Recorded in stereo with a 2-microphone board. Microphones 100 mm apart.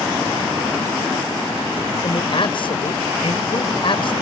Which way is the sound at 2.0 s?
55° left (ahead or behind).